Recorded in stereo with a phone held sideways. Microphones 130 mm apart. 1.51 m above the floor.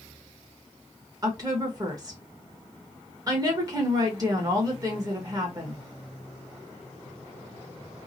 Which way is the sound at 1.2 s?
30° right (ahead or behind).